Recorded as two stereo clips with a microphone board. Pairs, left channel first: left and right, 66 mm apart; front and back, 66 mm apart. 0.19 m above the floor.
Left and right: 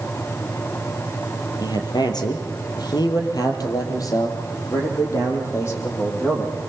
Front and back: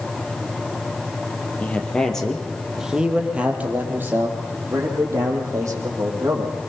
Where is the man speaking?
70° left, 4 m; by 6.5 s 145° left, 7 m.